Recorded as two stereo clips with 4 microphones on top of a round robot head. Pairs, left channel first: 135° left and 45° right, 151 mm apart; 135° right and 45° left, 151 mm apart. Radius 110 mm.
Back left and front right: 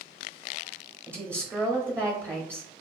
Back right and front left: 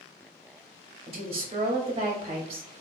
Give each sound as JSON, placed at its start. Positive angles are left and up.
{"t": 1.1, "sound": "a woman speaking", "azimuth_deg": 20, "distance_m": 0.8}